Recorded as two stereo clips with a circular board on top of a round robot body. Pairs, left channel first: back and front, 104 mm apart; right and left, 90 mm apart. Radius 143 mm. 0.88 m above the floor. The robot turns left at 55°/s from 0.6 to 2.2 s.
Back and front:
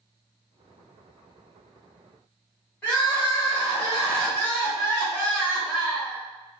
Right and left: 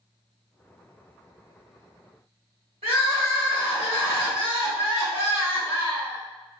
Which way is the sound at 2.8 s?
105° left.